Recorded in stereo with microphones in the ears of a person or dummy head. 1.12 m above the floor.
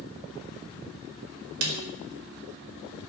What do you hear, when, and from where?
1.6 s a snare drum: 85° right, 4.5 m